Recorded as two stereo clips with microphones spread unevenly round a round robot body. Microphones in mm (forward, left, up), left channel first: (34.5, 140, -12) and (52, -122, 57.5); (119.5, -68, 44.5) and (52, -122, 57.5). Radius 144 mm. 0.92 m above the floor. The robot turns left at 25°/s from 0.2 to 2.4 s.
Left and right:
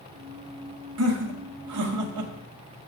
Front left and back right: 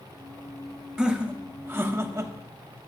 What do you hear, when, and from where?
1.0 s laughter: 55° right, 1.3 m; by 2.3 s 90° right, 1.3 m